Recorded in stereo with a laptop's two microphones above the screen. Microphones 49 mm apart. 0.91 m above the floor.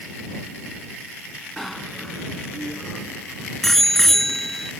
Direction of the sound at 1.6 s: 5° left (ahead or behind).